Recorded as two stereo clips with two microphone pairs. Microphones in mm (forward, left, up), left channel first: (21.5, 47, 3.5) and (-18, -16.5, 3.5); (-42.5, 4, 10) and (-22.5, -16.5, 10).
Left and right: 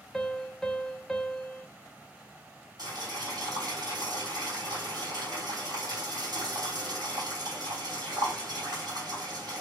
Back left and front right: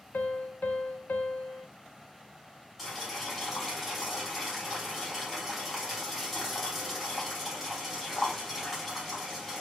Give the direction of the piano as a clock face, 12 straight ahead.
7 o'clock.